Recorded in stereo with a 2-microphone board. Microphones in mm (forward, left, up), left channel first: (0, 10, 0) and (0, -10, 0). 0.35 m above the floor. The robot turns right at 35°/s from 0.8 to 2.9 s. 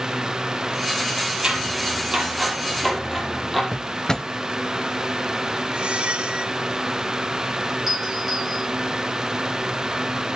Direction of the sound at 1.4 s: 50° right (ahead or behind).